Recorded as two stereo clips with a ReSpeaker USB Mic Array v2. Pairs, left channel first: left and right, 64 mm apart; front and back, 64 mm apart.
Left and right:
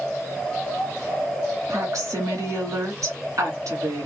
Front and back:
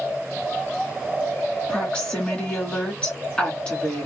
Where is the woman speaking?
75° right, 2 m.